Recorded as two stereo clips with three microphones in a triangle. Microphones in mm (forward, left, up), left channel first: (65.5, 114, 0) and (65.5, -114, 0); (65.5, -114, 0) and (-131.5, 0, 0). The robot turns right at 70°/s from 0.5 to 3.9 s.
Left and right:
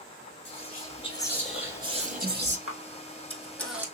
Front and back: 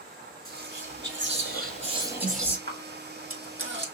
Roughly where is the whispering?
Left.